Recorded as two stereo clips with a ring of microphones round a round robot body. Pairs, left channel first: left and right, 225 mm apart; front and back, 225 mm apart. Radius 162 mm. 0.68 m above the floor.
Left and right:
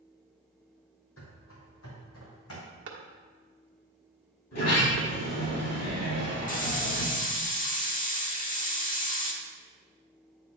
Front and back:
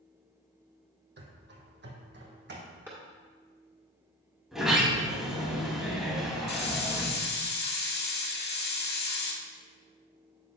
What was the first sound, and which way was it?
Running footsteps, 140° left.